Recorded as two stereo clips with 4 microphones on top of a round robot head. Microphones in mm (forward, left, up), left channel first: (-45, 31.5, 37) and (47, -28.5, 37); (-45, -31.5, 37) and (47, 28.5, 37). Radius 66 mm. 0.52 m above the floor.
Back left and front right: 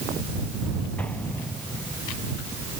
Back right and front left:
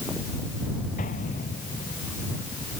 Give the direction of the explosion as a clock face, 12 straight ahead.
5 o'clock.